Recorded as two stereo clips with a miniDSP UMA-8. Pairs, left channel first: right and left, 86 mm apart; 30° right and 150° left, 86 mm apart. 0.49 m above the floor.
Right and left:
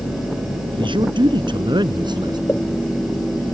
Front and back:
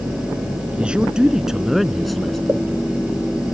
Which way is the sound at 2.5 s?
160° right.